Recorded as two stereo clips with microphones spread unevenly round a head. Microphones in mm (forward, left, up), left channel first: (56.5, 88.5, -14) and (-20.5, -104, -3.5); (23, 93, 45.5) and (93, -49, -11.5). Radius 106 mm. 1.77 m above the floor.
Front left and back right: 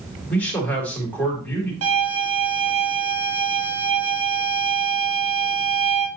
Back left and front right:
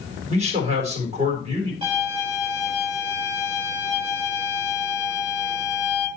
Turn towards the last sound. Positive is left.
turn(degrees=-130)